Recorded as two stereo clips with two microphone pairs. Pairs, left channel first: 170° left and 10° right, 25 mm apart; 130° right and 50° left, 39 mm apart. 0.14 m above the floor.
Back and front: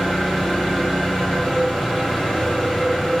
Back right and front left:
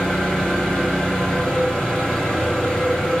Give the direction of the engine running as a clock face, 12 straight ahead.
6 o'clock.